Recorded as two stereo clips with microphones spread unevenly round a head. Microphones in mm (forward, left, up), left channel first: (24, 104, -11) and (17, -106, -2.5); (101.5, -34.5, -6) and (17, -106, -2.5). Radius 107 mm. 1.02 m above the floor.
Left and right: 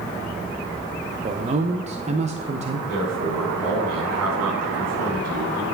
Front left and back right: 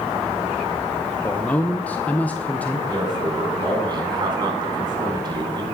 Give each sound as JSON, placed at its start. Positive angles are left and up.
{"t": 1.2, "sound": "a man speaking", "azimuth_deg": -35, "distance_m": 0.8}
{"t": 2.9, "sound": "a man speaking", "azimuth_deg": -90, "distance_m": 4.5}